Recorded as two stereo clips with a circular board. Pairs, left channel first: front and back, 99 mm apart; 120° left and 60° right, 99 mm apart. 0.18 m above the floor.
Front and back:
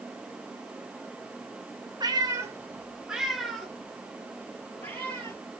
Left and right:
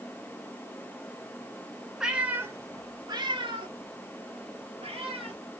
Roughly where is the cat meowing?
Behind right.